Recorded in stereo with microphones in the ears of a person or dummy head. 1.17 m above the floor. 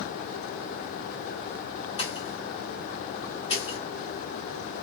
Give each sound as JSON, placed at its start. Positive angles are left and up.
{"t": 2.0, "sound": "a pop", "side_deg": 35, "distance_m": 1.4}